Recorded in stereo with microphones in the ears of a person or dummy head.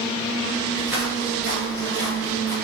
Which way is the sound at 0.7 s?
5° right (ahead or behind).